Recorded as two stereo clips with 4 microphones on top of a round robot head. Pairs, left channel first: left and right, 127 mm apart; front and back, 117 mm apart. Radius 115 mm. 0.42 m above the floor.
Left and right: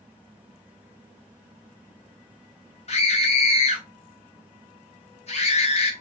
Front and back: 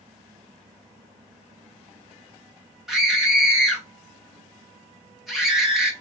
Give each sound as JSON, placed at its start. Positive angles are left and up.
{"t": 2.9, "sound": "a scream", "azimuth_deg": 90, "distance_m": 1.5}